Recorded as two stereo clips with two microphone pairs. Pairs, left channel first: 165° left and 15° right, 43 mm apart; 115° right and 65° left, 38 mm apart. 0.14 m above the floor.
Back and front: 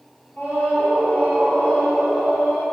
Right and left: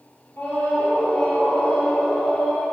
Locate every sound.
0.4 s a scream: 145° right, 3.5 m